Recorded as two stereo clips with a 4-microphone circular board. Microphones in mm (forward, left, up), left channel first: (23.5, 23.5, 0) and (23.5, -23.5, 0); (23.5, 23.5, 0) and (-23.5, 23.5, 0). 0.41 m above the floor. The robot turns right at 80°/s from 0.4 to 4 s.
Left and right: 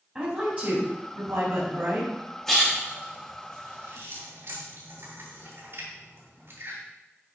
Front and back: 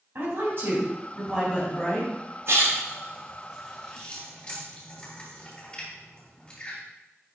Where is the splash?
175° left, 3.5 m; by 6.8 s 60° right, 3.5 m.